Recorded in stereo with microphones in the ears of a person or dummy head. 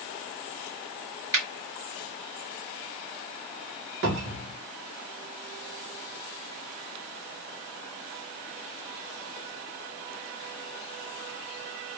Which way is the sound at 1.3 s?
15° right (ahead or behind).